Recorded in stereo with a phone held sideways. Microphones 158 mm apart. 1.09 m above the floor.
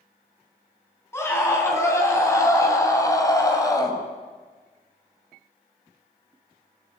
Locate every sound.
1.1 s a scream: 15° left (ahead or behind), 9 m; by 4.0 s 25° left (ahead or behind), 6 m